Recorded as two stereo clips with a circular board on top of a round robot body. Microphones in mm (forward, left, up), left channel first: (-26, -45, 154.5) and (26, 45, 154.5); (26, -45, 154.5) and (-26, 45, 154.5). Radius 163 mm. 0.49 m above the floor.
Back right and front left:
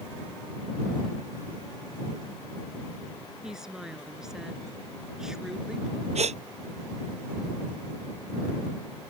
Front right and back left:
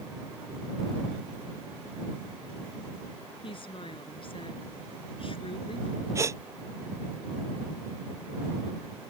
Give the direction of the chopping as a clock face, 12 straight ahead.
I don't hear chopping.